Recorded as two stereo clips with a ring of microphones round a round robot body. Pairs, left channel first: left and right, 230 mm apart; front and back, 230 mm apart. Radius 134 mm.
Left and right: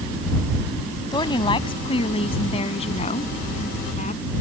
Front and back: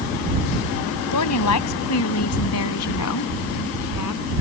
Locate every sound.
1.1 s a woman speaking: 15° left; by 4.2 s 25° left